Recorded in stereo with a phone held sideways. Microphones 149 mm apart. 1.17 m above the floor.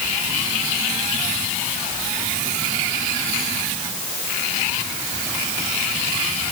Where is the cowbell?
I don't hear a cowbell.